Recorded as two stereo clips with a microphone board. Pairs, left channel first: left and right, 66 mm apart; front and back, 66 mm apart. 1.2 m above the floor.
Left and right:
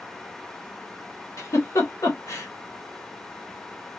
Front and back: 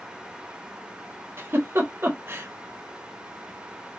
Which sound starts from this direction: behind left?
A giggle, at 1.4 s.